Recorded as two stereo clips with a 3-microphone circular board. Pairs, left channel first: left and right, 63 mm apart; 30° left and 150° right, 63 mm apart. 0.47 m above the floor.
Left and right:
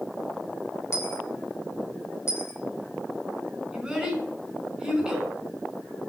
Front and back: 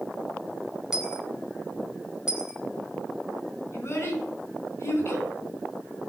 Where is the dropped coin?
130° left, 1.8 m.